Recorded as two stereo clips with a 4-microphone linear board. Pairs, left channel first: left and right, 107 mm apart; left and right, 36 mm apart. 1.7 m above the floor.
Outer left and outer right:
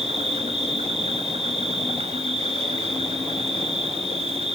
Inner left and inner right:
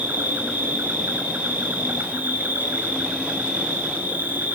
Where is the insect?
70° right (ahead or behind), 3 m.